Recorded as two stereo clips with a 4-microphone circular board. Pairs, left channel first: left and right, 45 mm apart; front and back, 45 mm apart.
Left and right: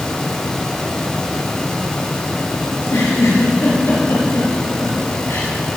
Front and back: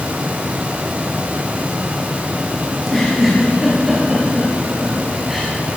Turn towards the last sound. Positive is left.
turn(degrees=95)